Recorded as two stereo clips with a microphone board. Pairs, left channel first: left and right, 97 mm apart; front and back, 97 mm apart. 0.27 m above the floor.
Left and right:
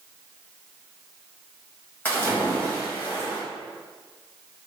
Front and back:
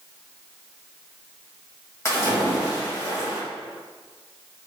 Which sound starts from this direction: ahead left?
A splash, at 2.0 s.